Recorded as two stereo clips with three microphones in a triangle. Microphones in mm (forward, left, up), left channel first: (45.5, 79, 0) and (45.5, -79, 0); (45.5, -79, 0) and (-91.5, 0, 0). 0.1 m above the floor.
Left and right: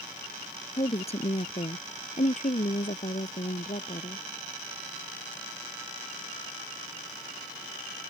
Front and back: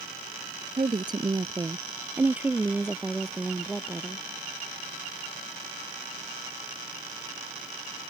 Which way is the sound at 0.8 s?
115° left.